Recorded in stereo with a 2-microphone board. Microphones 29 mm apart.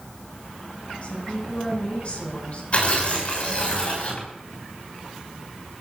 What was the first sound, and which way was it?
A woman speaking, 45° left (ahead or behind).